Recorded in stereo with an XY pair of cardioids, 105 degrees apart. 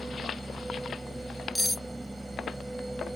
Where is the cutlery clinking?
10° left.